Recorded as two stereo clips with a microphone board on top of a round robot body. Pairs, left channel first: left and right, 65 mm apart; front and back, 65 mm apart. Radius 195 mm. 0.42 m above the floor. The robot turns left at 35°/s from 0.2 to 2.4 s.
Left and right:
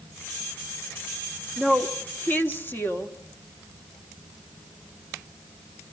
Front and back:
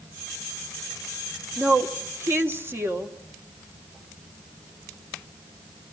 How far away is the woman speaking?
About 2 m.